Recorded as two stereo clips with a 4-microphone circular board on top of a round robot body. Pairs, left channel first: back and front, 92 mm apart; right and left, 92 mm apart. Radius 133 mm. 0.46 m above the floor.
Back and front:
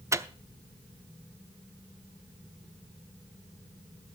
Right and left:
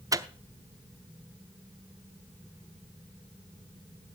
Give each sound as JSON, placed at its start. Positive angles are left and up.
{"t": 0.1, "sound": "a microwave", "azimuth_deg": 50, "distance_m": 0.9}